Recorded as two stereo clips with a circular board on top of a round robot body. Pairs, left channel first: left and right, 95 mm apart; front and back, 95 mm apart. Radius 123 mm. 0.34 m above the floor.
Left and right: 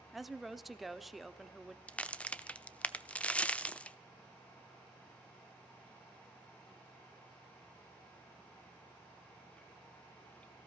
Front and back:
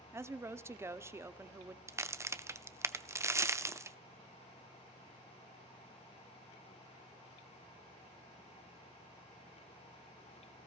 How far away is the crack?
About 0.9 m.